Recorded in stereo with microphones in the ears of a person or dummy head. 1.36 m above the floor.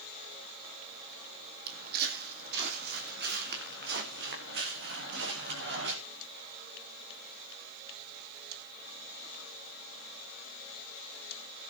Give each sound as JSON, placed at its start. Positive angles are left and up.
{"t": 1.7, "sound": "footsteps", "side_deg": -55, "distance_m": 3.5}